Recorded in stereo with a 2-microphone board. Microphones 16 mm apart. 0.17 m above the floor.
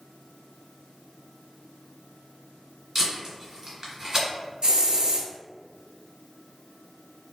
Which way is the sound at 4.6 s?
55° right (ahead or behind).